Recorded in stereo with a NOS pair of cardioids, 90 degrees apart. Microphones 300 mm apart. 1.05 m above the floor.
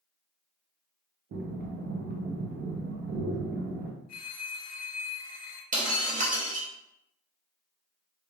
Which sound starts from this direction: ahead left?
A phone ringing, at 4.1 s.